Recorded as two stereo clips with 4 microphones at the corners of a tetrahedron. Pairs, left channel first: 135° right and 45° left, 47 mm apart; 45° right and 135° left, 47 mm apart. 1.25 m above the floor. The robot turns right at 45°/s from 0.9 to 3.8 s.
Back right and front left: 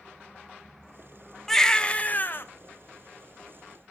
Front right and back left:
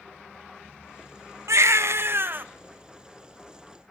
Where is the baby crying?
140° left, 0.9 m; by 2.5 s 175° right, 0.9 m.